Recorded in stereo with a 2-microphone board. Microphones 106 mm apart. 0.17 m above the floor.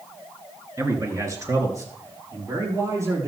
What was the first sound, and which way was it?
A man speaking, 30° right (ahead or behind).